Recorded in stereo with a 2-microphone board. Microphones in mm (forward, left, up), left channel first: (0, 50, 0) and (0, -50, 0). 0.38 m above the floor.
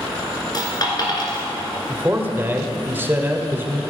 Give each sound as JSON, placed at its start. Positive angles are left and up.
{"t": 0.5, "sound": "a dropped coin", "side_deg": 40, "distance_m": 2.0}
{"t": 1.9, "sound": "a man speaking", "side_deg": -20, "distance_m": 1.0}